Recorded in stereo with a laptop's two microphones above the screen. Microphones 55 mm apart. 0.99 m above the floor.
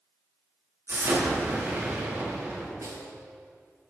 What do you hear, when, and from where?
0.9 s an explosion: 45° right (ahead or behind), 2 m
2.8 s a snare drum: 70° right (ahead or behind), 1.3 m